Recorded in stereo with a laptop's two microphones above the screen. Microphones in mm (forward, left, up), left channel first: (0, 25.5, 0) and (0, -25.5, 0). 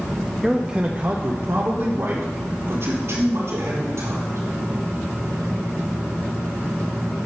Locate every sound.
0.4 s a man speaking: centre (ahead or behind), 0.8 m; by 4.4 s 75° right (ahead or behind), 4 m